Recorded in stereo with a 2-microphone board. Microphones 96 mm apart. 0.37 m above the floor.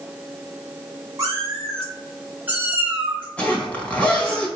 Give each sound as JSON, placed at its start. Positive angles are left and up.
{"t": 1.2, "sound": "a cat meowing", "side_deg": -35, "distance_m": 2.0}
{"t": 3.4, "sound": "a zipper", "side_deg": 15, "distance_m": 1.4}